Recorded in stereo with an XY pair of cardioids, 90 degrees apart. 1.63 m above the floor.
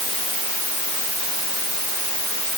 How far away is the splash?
No splash in this recording.